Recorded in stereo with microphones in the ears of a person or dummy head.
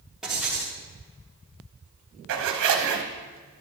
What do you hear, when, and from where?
0.2 s writing: centre (ahead or behind), 2.5 m
2.3 s a zipper: 60° right (ahead or behind), 1.1 m